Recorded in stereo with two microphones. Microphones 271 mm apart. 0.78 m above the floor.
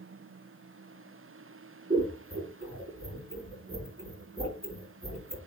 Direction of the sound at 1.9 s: 20° right (ahead or behind).